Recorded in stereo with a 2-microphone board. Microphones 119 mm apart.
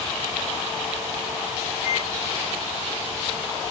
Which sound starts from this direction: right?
A microwave, at 1.8 s.